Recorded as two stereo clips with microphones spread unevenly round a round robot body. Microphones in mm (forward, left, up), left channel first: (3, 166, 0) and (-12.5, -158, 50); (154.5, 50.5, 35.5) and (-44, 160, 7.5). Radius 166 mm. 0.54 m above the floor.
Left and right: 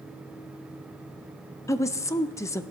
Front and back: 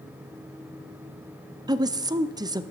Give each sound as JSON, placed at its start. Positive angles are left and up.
{"t": 1.7, "sound": "a woman speaking", "azimuth_deg": 135, "distance_m": 0.7}